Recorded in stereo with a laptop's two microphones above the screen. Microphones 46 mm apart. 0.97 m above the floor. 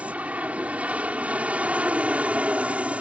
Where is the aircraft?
30° right (ahead or behind).